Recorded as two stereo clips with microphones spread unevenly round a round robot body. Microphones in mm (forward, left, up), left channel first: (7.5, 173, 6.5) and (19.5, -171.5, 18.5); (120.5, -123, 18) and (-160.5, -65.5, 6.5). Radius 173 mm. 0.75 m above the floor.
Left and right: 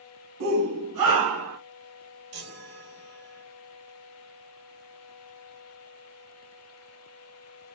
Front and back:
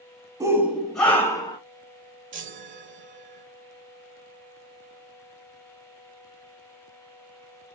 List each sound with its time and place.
0.4 s a shout: 120° right, 1.1 m; by 1.6 s 60° right, 1.2 m
2.3 s a chime: 145° right, 0.9 m